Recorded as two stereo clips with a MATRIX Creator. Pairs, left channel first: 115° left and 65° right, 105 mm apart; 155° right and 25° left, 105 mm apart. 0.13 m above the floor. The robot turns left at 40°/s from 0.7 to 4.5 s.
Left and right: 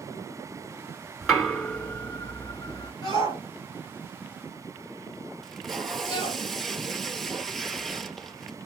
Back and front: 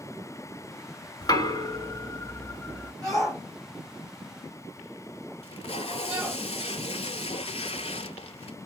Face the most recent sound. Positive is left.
turn(degrees=-160)